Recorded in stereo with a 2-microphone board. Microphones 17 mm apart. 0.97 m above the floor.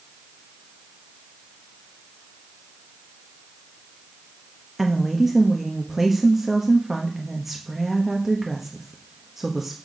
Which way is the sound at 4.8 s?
15° right (ahead or behind).